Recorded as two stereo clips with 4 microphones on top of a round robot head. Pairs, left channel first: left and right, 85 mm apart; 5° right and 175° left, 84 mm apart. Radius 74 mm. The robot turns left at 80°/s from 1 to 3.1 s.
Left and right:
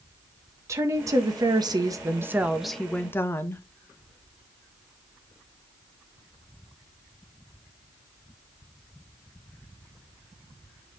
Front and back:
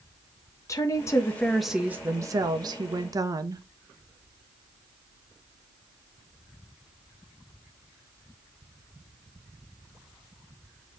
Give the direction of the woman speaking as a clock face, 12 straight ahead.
2 o'clock.